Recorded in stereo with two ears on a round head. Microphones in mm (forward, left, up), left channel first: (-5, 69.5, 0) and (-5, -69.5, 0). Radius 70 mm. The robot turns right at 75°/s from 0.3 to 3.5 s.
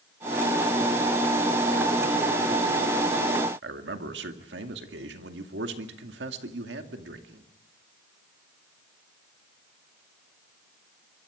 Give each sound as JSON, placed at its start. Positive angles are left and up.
{"t": 3.6, "sound": "a man speaking", "side_deg": -85, "distance_m": 2.0}